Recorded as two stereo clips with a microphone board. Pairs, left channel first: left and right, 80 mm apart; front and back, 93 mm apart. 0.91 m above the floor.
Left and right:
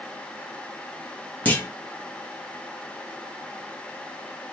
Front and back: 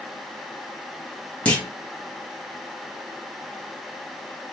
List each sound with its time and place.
1.4 s a clunk: 55° left, 1.0 m